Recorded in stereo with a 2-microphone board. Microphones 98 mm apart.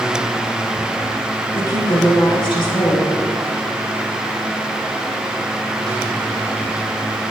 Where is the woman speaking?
50° left (ahead or behind), 4.5 m.